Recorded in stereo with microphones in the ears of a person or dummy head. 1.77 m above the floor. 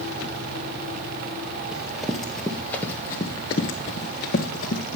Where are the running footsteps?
5° right (ahead or behind), 3 m; by 5.0 s 40° left (ahead or behind), 3 m.